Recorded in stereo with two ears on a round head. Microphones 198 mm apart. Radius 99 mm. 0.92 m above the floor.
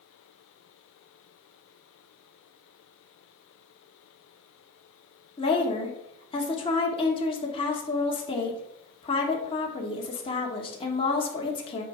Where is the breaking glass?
I don't hear breaking glass.